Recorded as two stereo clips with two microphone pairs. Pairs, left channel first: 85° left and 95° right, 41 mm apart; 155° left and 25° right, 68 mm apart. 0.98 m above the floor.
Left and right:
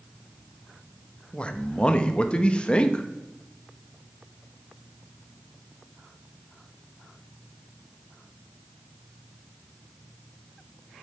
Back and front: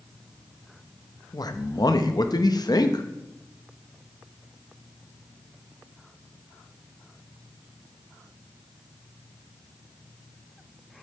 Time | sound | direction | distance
1.3 | a man speaking | 150° left | 0.9 m